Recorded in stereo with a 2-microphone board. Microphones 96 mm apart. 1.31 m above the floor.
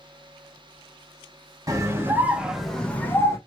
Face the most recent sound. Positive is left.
turn(degrees=30)  # may be behind; listen again after turning